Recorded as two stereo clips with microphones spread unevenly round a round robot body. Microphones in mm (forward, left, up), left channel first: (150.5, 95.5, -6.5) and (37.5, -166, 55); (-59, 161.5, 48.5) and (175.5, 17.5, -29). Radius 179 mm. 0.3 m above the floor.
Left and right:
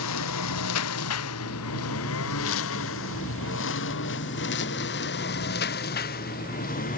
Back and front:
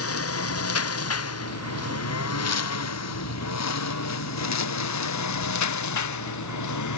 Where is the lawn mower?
115° left; by 7.0 s 135° left.